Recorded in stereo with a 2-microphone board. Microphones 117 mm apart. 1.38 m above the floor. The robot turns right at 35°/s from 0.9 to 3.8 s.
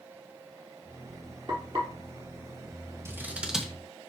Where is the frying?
40° right (ahead or behind), 4.5 m; by 1.9 s 55° right (ahead or behind), 4.5 m.